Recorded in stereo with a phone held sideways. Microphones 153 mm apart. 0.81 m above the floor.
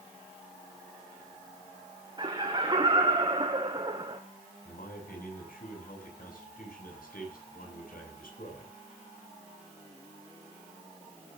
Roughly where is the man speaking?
Left.